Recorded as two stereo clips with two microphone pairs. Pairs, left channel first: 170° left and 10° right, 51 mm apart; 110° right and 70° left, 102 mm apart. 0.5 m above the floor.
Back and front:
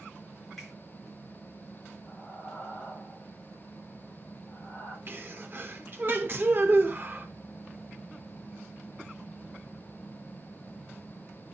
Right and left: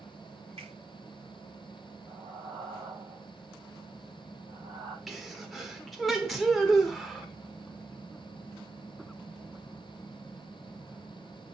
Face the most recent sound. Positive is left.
turn(degrees=-20)